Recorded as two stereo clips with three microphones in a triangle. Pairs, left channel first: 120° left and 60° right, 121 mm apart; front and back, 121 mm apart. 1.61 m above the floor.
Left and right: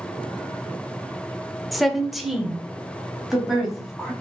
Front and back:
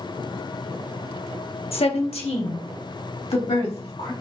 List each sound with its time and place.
1.7 s a woman speaking: 30° left, 0.7 m; by 4.1 s 25° left, 2 m